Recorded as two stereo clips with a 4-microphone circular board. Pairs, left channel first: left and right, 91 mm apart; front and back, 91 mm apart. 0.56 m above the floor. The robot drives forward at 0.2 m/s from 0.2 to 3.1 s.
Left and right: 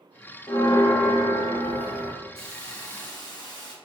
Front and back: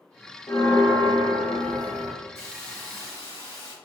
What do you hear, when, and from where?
0.5 s a bell: 50° left, 0.8 m; by 2.1 s 75° left, 0.7 m
2.4 s a hiss: 55° left, 1.6 m; by 3.7 s 60° left, 1.6 m